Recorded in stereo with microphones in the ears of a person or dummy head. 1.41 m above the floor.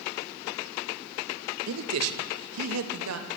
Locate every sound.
1.7 s a man speaking: 80° right, 1.8 m